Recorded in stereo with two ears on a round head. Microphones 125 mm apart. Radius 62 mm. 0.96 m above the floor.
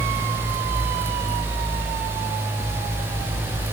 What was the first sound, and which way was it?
Only background noise.